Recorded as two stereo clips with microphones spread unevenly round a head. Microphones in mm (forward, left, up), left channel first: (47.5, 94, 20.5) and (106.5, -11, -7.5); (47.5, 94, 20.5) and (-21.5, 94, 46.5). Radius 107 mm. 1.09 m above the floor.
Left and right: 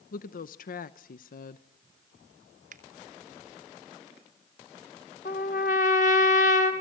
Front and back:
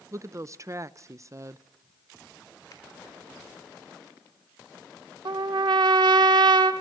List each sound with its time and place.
0.1 s a woman speaking: 120° left, 0.8 m
2.7 s a finger snap: 60° right, 2.5 m
5.2 s a trumpet: 170° left, 1.8 m